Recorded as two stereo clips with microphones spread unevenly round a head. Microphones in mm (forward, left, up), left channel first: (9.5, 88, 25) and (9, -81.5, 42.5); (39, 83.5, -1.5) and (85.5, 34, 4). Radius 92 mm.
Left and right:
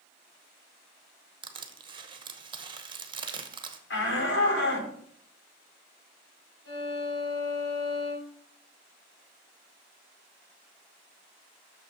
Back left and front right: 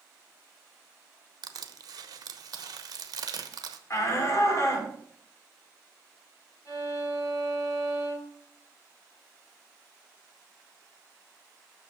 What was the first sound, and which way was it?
Crushing, 30° right.